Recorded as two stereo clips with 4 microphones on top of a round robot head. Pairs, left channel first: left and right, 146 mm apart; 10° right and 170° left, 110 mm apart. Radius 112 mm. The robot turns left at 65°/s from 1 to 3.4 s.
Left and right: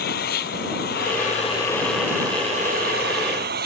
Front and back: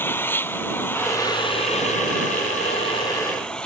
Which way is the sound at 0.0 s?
60° left.